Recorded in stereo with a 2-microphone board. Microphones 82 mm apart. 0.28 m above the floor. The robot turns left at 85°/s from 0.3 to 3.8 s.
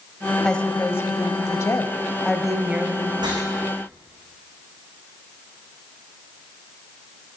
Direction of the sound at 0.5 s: 170° left.